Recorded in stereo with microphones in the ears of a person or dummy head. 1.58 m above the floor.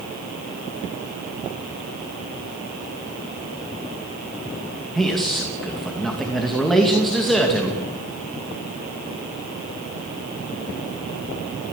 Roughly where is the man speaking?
Centre.